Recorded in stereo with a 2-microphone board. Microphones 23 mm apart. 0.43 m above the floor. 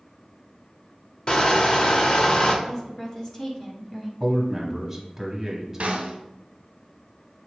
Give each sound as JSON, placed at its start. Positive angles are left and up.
{"t": 1.3, "sound": "crushing", "side_deg": 35, "distance_m": 0.7}
{"t": 2.6, "sound": "a woman speaking", "side_deg": 25, "distance_m": 1.0}
{"t": 4.2, "sound": "a man speaking", "side_deg": -5, "distance_m": 1.1}
{"t": 5.8, "sound": "a snare drum", "side_deg": -60, "distance_m": 0.8}